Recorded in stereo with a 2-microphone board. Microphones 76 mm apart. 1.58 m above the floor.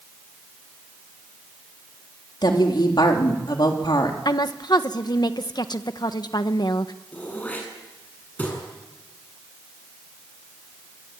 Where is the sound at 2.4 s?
70° left (ahead or behind), 3.5 m.